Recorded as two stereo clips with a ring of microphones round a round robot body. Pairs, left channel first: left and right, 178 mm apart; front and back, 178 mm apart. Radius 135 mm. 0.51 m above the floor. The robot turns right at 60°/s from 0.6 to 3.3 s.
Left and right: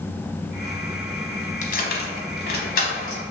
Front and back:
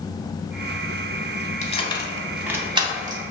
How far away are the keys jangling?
About 0.6 m.